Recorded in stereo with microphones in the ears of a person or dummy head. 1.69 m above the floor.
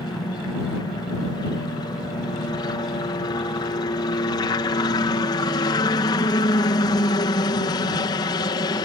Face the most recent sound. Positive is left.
turn(degrees=25)  # may be behind; listen again after turning